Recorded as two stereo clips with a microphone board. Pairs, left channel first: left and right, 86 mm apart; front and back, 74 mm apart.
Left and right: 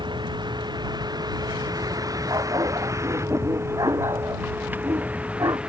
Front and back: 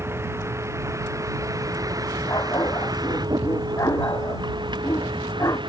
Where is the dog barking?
45° right.